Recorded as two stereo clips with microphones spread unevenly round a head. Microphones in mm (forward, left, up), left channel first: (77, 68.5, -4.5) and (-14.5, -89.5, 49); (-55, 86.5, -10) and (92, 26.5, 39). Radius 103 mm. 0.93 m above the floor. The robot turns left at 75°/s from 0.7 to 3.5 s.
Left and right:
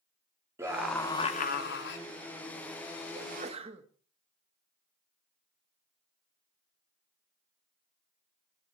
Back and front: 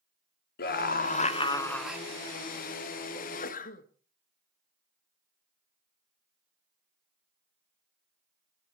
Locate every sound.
0.6 s a scream: 160° left, 2 m; by 2.0 s 60° left, 2 m
3.1 s a sneeze: 160° right, 1.7 m; by 3.9 s 170° left, 1.7 m